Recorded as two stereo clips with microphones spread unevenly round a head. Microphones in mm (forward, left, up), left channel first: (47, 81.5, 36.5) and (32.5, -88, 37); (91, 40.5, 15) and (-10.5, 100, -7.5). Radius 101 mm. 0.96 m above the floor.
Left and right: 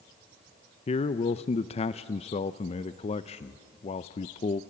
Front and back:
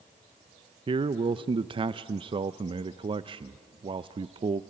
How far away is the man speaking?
About 0.5 m.